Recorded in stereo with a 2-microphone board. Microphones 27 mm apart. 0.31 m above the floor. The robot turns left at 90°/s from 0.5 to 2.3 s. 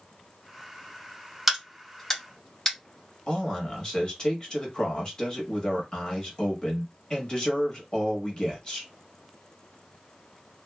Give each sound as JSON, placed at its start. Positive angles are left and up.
{"t": 1.5, "sound": "a crack", "side_deg": -5, "distance_m": 1.6}
{"t": 3.3, "sound": "a man speaking", "side_deg": 30, "distance_m": 1.1}